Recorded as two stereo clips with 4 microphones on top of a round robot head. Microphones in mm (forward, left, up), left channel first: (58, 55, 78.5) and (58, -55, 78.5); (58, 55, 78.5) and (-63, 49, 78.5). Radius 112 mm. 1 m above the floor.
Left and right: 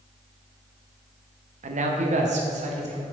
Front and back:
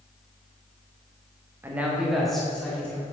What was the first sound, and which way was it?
A man speaking, 100° right.